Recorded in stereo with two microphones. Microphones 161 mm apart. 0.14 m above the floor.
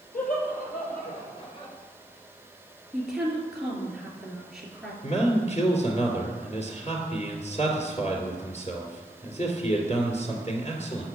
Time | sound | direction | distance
0.1 | laughter | 65° left (ahead or behind) | 3 m
2.9 | a woman speaking | centre (ahead or behind) | 2.5 m
5.0 | a man speaking | 45° left (ahead or behind) | 2 m